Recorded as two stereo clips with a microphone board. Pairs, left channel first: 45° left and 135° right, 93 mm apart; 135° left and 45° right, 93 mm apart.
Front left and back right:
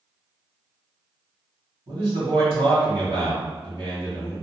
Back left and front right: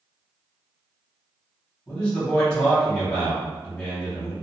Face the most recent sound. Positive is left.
turn(degrees=-145)